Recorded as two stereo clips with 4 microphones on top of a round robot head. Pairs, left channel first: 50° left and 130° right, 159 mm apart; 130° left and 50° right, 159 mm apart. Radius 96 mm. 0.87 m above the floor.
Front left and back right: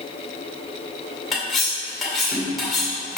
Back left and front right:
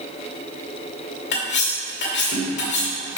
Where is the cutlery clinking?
140° left, 2 m.